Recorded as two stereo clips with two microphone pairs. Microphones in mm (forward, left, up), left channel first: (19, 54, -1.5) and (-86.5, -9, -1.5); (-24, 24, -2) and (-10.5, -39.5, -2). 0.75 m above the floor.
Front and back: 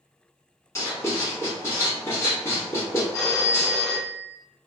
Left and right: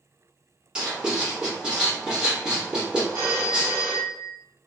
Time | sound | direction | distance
0.8 | writing | 15° right | 1.2 m
3.1 | a phone ringing | 40° right | 1.5 m